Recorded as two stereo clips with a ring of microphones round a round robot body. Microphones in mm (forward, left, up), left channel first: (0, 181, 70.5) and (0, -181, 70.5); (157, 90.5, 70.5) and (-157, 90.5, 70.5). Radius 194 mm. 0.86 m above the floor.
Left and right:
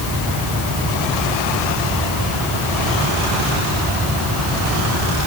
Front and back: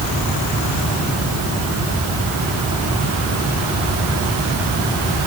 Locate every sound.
Only background noise.